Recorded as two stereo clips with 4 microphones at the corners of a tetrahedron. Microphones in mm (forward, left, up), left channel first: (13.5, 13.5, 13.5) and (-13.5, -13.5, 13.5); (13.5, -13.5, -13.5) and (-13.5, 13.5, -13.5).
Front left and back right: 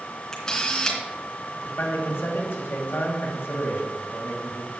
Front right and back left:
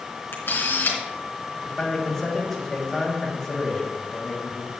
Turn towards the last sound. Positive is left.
turn(degrees=35)